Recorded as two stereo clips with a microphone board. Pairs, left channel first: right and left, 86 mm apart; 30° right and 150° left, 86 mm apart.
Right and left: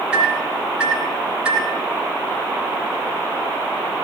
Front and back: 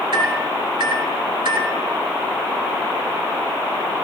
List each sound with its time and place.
0.1 s a microwave: 165° left, 3 m